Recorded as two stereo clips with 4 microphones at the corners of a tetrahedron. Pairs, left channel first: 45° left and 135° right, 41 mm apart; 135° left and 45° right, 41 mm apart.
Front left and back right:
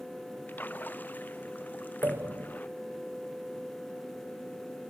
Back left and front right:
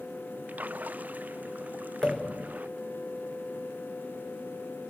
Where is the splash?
Straight ahead.